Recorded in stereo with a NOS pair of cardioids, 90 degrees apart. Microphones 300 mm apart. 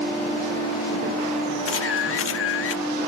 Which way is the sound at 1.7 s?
50° left.